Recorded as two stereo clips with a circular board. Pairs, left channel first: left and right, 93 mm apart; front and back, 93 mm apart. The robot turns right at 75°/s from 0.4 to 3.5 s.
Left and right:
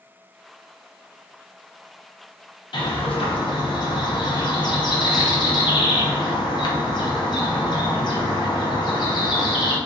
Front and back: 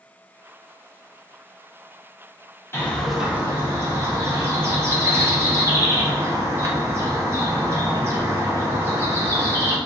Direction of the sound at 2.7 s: 60° left.